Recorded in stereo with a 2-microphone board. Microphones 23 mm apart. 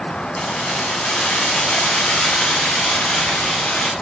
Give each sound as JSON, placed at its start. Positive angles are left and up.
{"t": 0.4, "sound": "keys jangling", "side_deg": 70, "distance_m": 7.0}